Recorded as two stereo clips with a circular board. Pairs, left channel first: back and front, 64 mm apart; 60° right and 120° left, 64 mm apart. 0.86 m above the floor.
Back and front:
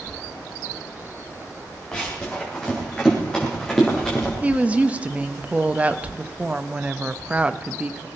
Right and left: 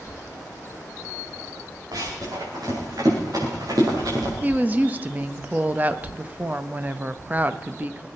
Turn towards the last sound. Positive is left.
turn(degrees=65)